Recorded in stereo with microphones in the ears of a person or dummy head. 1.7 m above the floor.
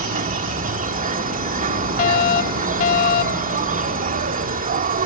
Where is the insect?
50° right (ahead or behind).